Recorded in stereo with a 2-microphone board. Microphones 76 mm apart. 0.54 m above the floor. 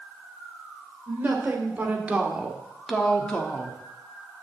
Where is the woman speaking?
25° right (ahead or behind), 2.5 m; by 3.8 s 25° left (ahead or behind), 1.3 m.